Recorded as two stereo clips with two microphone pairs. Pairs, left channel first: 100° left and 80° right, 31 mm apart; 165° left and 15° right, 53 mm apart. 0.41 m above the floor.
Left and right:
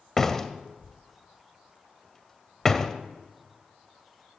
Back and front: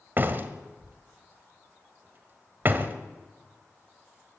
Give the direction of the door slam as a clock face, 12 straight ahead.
11 o'clock.